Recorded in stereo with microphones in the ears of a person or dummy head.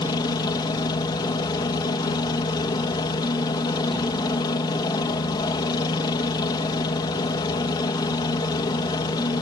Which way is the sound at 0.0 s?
20° left (ahead or behind).